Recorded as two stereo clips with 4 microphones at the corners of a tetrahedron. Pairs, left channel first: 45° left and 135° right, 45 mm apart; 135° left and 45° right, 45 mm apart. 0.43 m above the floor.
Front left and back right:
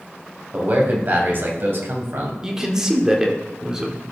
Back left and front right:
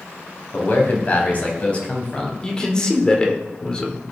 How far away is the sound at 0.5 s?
About 2.5 m.